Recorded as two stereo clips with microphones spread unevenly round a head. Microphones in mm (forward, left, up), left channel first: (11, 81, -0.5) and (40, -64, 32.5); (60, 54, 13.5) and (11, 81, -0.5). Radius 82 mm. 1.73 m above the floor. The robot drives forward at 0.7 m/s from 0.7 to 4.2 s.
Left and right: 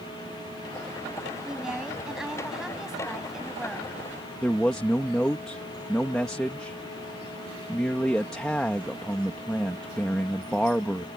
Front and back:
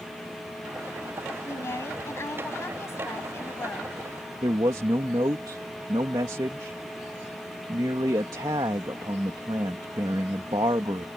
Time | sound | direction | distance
1.4 | a woman speaking | 5° left | ?
4.4 | a man speaking | 165° right | ?